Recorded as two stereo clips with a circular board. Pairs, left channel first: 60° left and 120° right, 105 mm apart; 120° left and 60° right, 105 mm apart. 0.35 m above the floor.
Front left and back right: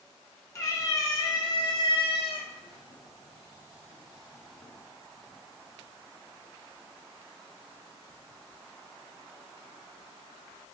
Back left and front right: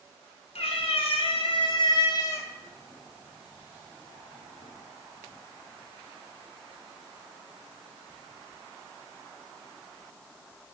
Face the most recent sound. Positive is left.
turn(degrees=-15)